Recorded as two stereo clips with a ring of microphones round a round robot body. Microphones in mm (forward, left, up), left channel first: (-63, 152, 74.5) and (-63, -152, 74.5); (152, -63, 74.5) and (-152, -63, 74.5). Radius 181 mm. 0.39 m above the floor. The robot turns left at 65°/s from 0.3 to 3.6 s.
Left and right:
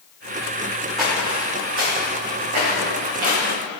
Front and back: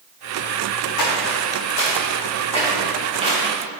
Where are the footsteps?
Straight ahead, 1.7 m; by 3.8 s 125° right, 3 m.